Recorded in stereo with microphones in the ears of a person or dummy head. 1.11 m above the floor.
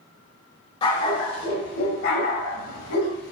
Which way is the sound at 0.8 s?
35° left (ahead or behind).